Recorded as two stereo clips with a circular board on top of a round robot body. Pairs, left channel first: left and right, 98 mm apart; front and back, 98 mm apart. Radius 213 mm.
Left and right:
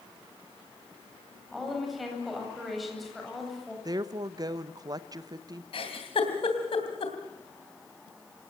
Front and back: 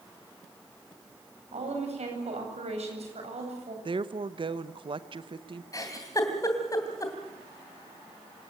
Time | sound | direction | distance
1.5 | a woman speaking | straight behind | 8.5 m
3.9 | a woman speaking | 140° right | 0.9 m
5.7 | a giggle | 60° left | 3 m